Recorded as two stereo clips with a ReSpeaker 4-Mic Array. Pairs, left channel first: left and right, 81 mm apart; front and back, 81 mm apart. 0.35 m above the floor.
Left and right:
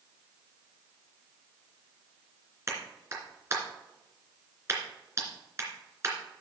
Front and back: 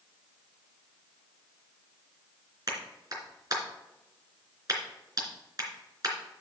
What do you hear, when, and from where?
2.7 s a clap: 145° right, 3 m